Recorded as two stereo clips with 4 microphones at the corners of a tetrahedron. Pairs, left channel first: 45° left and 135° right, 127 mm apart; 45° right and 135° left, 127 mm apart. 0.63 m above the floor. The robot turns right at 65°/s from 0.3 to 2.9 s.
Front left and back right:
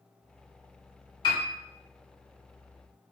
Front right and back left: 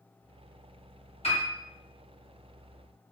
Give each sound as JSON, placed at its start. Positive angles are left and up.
{"t": 1.2, "sound": "a piano", "azimuth_deg": -5, "distance_m": 1.1}